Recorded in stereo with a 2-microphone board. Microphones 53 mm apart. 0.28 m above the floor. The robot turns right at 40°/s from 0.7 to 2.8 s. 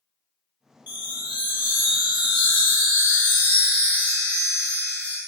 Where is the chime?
45° right, 1.2 m; by 5.2 s 35° left, 1.2 m.